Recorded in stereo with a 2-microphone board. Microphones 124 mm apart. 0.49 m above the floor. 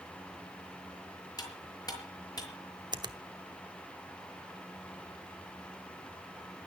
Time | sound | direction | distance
1.4 | cutlery clinking | 35° left (ahead or behind) | 6 m
2.9 | a finger snap | 35° right (ahead or behind) | 1.0 m